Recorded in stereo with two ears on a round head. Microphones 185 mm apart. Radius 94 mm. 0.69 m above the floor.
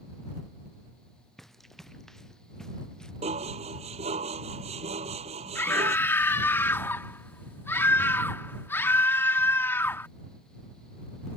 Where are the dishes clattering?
30° right (ahead or behind).